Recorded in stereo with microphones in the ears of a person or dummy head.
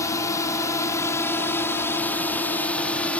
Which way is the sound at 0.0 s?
15° left (ahead or behind).